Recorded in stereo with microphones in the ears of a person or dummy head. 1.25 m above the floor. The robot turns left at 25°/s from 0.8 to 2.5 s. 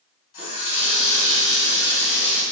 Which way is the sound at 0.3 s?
55° left.